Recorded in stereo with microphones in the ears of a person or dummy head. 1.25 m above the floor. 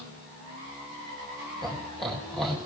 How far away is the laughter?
About 4 m.